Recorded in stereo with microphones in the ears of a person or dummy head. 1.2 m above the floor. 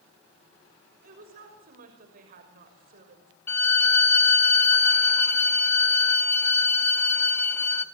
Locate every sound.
1.0 s a woman speaking: 45° right (ahead or behind), 6 m
3.5 s a violin: 10° left (ahead or behind), 0.8 m